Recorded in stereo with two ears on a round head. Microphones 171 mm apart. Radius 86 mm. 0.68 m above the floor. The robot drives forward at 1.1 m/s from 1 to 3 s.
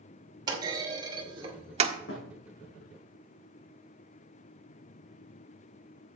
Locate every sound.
0.5 s a clunk: 20° right (ahead or behind), 2 m; by 2.0 s 35° right (ahead or behind), 1.4 m
2.1 s a thud: 75° left (ahead or behind), 5 m; by 2.4 s 70° left (ahead or behind), 5 m